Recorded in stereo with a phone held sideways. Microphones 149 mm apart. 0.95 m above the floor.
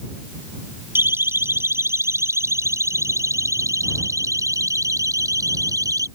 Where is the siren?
15° right (ahead or behind); by 6.1 s 25° right (ahead or behind).